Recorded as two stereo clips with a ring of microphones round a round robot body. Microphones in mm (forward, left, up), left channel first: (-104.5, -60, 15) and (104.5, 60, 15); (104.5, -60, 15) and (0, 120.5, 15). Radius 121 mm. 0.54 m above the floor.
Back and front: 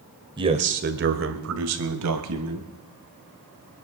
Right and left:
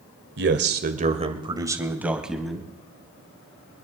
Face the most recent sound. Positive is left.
turn(degrees=25)